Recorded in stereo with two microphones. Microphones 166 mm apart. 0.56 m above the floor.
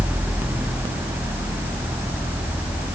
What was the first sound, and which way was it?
Only background noise.